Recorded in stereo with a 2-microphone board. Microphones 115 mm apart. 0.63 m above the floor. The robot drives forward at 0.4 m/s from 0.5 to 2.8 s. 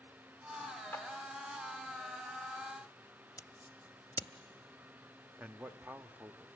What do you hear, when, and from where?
0.9 s a clap: 20° left (ahead or behind), 1.9 m
3.4 s scissors: 30° left (ahead or behind), 0.7 m
5.4 s a man speaking: 15° right (ahead or behind), 0.6 m